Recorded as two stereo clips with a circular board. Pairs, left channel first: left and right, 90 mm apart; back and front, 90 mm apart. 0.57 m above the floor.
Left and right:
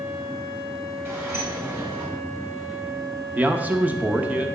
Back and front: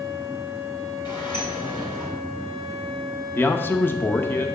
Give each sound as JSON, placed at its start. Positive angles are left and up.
{"t": 1.1, "sound": "a sliding door", "azimuth_deg": -150, "distance_m": 3.0}
{"t": 3.4, "sound": "a man speaking", "azimuth_deg": -145, "distance_m": 0.7}